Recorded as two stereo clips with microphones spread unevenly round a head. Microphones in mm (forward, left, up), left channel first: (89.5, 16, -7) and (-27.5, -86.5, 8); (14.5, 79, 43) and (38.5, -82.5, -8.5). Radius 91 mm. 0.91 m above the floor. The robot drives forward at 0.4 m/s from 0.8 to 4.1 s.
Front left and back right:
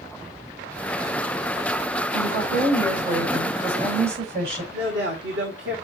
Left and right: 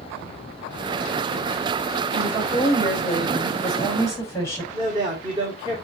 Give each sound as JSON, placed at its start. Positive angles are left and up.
{"t": 2.1, "sound": "a woman speaking", "azimuth_deg": 175, "distance_m": 5.0}
{"t": 4.7, "sound": "a man speaking", "azimuth_deg": -145, "distance_m": 2.5}